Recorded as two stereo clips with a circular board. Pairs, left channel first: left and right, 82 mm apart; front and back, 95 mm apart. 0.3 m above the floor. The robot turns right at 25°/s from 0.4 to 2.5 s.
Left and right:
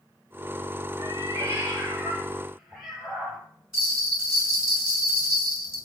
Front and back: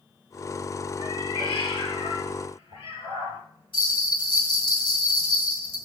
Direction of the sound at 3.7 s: 10° right.